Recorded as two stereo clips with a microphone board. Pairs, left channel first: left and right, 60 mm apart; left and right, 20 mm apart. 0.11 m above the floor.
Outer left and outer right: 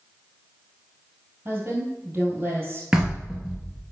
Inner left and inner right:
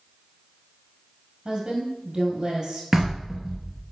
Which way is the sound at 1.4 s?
35° right (ahead or behind).